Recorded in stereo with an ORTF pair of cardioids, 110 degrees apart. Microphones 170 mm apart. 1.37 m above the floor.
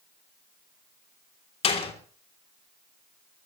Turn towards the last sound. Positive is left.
turn(degrees=35)